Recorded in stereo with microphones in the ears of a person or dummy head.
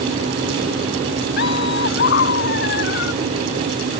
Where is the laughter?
60° left (ahead or behind).